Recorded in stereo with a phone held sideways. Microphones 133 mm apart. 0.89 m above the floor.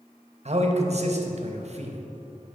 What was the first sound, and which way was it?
A man speaking, 55° right (ahead or behind).